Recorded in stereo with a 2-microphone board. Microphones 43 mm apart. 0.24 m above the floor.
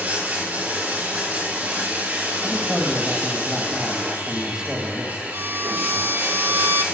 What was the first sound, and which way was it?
Running water, 40° right (ahead or behind).